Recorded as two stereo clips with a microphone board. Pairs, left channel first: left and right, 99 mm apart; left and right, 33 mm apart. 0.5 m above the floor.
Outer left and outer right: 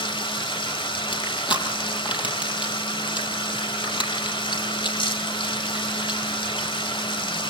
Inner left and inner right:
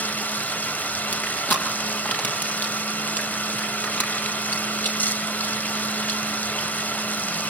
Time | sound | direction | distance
0.0 | running water | 55° left (ahead or behind) | 1.4 m
1.1 | crushing | 55° left (ahead or behind) | 5 m